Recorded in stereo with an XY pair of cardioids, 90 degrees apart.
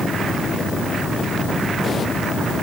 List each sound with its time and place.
Only background noise.